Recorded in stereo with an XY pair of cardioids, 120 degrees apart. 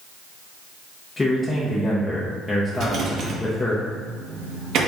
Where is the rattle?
65° right, 1.1 m.